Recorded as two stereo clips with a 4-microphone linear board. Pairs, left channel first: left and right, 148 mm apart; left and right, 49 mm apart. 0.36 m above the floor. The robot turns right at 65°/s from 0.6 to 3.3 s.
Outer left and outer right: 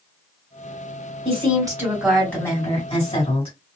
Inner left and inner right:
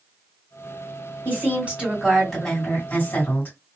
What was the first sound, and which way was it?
A woman speaking, 65° right.